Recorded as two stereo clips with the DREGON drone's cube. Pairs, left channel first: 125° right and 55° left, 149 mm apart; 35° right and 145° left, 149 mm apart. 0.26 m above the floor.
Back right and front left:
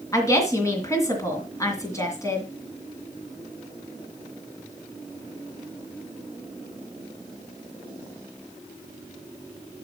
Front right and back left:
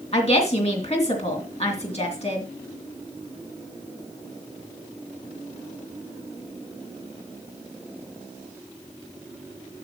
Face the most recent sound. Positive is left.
turn(degrees=-60)